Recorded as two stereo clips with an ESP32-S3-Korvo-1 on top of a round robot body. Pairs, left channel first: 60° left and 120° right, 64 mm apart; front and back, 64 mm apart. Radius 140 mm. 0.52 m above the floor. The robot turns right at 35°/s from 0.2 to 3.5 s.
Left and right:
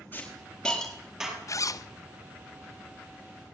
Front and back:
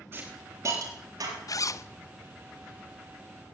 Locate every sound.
0.1 s a hiss: 125° left, 8 m; by 1.4 s 170° left, 8 m
1.5 s a zipper: 25° left, 1.0 m; by 1.9 s 40° left, 1.0 m